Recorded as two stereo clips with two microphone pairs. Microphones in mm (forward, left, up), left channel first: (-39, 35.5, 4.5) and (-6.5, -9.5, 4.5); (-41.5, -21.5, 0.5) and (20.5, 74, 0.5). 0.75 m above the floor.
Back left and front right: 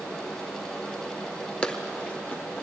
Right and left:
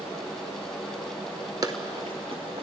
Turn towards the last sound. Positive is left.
turn(degrees=65)